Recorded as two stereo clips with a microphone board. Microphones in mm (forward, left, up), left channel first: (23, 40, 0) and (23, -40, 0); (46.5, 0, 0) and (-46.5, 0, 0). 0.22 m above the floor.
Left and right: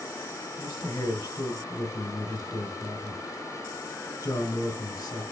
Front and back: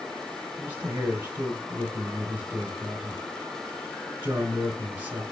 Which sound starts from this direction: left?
A man speaking, at 0.6 s.